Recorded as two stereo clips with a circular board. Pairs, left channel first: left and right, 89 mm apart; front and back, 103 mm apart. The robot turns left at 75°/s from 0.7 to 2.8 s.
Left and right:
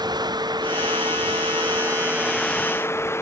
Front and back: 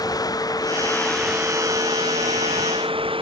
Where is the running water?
50° right; by 3.2 s 150° left.